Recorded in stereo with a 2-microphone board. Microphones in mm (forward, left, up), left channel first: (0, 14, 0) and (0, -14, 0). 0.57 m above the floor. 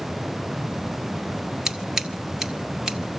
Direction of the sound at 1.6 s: 15° right (ahead or behind).